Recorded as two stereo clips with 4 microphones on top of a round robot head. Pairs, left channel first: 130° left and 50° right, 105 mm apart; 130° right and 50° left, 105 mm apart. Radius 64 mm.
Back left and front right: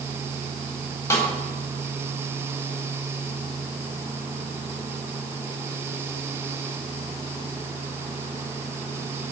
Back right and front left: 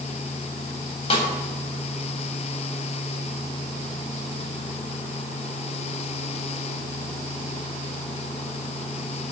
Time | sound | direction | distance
1.1 | a snare drum | 170° right | 3.5 m